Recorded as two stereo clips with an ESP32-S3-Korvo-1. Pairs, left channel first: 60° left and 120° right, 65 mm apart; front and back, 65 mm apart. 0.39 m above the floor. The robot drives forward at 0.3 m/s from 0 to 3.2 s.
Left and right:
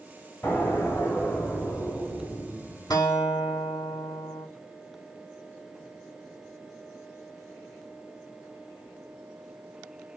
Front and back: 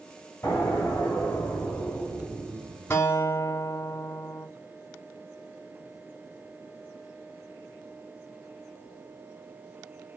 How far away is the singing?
No singing in this recording.